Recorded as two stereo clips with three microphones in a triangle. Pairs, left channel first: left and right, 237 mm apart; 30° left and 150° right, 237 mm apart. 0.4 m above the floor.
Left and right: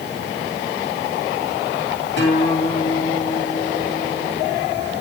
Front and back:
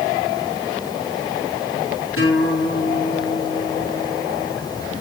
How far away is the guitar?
About 7 m.